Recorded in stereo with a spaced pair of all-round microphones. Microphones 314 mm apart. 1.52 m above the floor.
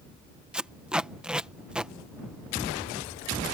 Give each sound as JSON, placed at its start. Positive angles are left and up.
{"t": 0.5, "sound": "tape being pulled", "side_deg": -5}